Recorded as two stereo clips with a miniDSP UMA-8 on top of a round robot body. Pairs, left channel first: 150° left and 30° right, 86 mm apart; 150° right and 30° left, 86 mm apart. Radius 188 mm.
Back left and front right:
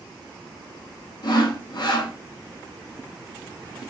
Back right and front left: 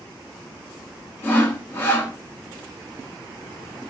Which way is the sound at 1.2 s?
150° left.